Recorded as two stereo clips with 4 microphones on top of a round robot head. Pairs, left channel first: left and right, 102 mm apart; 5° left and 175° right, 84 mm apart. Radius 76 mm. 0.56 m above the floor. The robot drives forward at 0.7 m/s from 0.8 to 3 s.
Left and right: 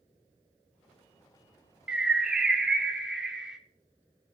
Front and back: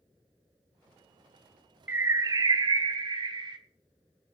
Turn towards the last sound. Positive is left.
turn(degrees=-175)